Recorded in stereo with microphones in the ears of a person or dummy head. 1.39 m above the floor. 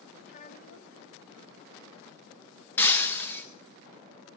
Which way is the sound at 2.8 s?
10° left (ahead or behind).